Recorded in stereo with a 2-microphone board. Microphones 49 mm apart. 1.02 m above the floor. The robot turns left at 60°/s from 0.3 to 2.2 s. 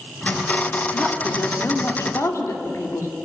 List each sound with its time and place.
0.9 s a woman speaking: 165° left, 2.5 m; by 3.1 s 90° left, 2.5 m